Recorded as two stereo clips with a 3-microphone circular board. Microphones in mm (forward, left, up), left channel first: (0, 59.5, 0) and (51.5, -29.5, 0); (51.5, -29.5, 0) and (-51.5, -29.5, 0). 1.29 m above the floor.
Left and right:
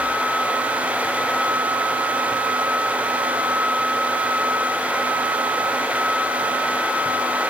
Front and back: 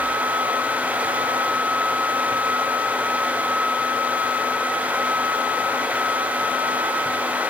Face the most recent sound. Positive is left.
No sound to turn to.